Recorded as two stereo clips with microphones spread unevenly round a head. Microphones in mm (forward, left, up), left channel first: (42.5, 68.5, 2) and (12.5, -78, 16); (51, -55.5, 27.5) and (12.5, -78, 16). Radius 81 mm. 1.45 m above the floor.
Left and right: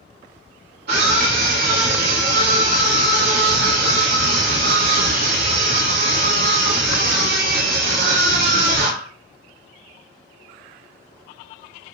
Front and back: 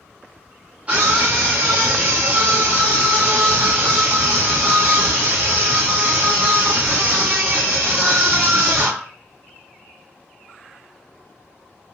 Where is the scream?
85° right, 3 m.